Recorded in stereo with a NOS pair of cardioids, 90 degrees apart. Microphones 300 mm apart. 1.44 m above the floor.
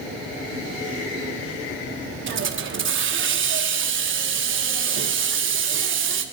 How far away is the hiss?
About 1.3 m.